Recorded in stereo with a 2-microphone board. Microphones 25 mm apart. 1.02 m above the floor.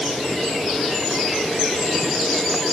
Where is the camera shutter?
I don't hear a camera shutter.